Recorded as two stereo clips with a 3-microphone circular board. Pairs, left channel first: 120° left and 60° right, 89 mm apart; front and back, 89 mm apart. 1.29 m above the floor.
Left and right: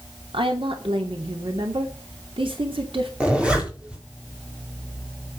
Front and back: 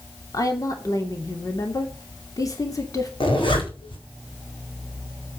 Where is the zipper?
20° left, 4 m.